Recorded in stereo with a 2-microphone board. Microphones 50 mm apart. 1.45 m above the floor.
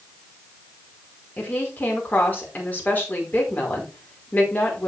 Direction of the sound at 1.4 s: 35° left (ahead or behind).